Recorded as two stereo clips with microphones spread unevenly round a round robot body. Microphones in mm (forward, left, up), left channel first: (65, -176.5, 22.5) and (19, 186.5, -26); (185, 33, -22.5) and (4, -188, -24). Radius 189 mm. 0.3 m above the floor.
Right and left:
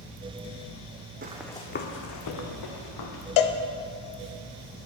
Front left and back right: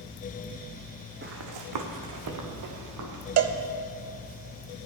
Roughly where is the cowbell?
Behind right.